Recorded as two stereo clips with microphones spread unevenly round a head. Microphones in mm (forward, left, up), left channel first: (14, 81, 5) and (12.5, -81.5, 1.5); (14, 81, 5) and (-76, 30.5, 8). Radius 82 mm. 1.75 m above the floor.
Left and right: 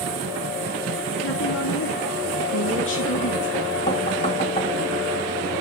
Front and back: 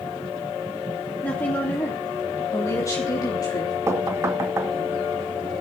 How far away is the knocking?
About 2 m.